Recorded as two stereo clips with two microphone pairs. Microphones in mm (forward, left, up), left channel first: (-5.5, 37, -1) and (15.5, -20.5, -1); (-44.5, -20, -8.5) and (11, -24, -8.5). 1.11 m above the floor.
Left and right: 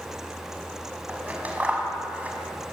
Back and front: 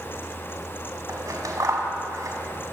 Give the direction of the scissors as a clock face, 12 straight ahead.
12 o'clock.